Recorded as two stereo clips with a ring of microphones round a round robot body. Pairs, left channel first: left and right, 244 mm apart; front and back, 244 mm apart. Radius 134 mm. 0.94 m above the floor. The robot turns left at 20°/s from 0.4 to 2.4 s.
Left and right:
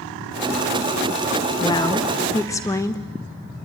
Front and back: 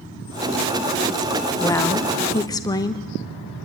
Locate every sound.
1.6 s a woman speaking: 55° left, 0.7 m; by 3.0 s 40° left, 0.7 m